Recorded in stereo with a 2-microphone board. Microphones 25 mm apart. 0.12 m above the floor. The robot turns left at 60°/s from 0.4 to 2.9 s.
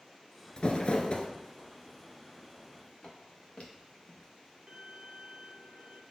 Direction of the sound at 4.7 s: 30° right (ahead or behind).